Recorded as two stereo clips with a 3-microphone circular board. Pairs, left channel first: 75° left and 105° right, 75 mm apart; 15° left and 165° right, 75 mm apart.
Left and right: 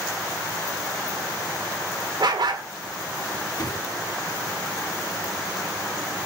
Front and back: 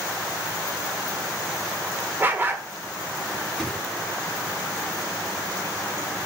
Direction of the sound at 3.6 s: 95° left.